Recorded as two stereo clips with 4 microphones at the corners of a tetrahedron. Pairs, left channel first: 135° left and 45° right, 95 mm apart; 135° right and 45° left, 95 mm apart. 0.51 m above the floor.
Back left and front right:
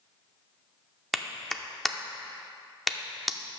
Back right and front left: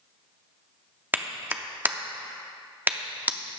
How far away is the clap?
About 0.6 m.